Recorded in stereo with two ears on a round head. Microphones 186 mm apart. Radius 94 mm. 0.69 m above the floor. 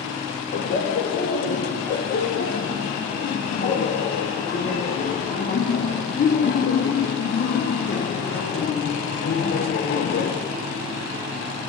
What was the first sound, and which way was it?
Laughter, 40° left (ahead or behind).